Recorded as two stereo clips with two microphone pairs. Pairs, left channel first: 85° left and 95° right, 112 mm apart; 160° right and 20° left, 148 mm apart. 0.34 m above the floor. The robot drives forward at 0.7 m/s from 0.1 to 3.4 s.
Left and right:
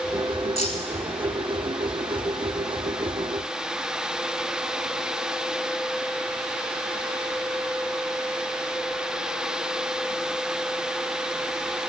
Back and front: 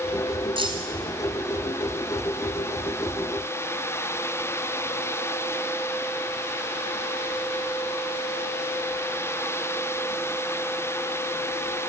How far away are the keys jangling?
About 2 m.